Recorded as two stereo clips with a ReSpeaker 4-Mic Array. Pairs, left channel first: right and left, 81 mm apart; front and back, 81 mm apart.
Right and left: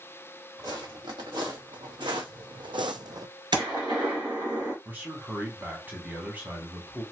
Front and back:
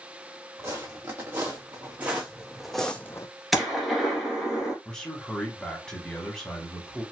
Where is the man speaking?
65° left, 1.1 m.